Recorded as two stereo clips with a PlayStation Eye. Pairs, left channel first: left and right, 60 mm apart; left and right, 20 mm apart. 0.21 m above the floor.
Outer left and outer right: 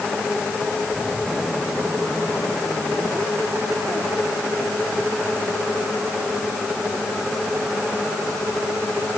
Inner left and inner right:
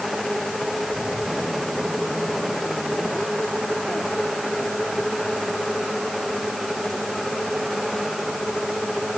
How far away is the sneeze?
I don't hear a sneeze.